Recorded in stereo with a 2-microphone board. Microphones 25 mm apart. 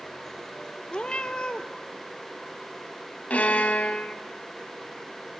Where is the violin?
75° left (ahead or behind), 1.0 m.